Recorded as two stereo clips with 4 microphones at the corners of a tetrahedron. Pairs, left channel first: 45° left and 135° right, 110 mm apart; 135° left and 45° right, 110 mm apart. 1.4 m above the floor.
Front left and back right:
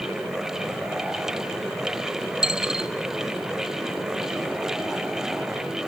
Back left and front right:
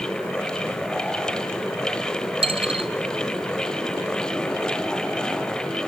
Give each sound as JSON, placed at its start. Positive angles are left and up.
{"t": 2.4, "sound": "a dropped coin", "azimuth_deg": -55, "distance_m": 2.0}